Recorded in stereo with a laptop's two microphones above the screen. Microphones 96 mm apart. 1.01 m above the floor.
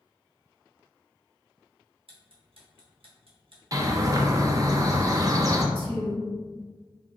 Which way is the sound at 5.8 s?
60° right (ahead or behind).